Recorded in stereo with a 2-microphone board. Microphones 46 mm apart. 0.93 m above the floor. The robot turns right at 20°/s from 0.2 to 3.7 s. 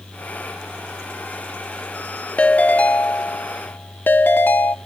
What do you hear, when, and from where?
2.4 s a ringtone: 30° left (ahead or behind), 0.5 m; by 4.8 s 45° left (ahead or behind), 0.5 m